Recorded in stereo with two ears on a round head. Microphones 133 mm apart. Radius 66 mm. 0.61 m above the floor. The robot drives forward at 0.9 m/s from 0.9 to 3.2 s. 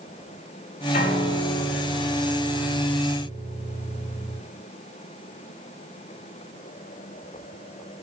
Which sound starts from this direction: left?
A piano, at 0.9 s.